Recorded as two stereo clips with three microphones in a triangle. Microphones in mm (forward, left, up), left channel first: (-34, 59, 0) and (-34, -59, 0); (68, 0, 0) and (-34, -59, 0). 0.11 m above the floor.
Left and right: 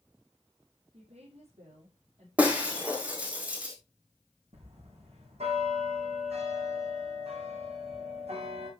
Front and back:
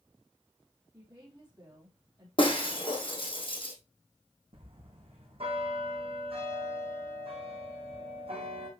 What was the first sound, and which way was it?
A woman speaking, 90° right.